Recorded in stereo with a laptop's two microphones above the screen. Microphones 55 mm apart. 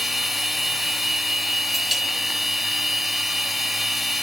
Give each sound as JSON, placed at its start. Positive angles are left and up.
{"t": 0.0, "sound": "a machine running", "side_deg": 0, "distance_m": 1.1}